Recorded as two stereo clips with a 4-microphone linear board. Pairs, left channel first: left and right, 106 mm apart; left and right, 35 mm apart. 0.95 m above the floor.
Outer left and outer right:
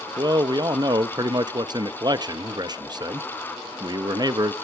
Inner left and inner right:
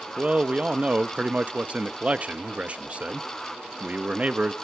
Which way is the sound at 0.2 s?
40° right (ahead or behind).